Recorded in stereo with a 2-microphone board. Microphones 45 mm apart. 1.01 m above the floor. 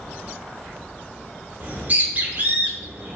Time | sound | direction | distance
1.6 | a bird | 35° right (ahead or behind) | 0.7 m